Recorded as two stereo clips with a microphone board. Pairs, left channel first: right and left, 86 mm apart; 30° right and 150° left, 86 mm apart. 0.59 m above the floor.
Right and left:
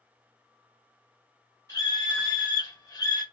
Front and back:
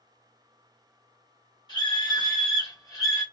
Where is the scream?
45° right, 2.5 m; by 3.2 s 70° right, 1.6 m.